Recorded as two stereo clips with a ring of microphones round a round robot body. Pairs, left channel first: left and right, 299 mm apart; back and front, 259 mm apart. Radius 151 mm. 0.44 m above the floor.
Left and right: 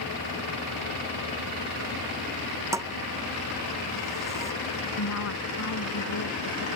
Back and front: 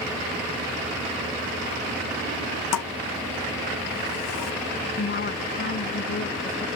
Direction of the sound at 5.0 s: 130° left.